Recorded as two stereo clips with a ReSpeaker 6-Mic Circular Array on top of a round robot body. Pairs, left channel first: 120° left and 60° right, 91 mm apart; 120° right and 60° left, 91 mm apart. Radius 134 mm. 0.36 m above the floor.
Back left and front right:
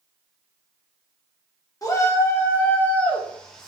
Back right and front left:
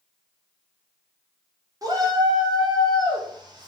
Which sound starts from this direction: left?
A shout, at 1.8 s.